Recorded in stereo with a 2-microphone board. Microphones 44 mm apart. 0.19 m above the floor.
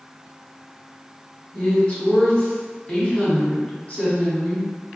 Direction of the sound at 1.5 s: 30° left (ahead or behind).